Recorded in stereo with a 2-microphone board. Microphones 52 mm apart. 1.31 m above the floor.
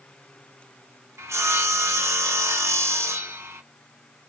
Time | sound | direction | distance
1.2 | sawing | 65° right (ahead or behind) | 0.8 m